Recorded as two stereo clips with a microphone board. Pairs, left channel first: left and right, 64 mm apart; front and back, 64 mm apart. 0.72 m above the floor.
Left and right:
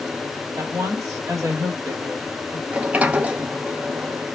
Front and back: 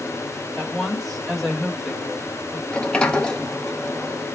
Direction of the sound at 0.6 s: 90° right.